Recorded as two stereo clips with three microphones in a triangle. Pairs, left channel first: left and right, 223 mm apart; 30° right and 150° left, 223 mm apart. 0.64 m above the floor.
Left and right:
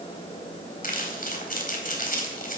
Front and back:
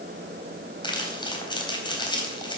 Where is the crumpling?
40° left, 3.5 m.